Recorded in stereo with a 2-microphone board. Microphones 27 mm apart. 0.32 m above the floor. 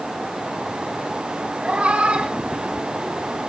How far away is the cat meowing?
About 2 m.